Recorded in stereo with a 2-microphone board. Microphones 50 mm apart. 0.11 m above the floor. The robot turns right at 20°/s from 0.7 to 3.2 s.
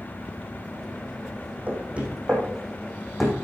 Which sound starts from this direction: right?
Knocking, at 1.7 s.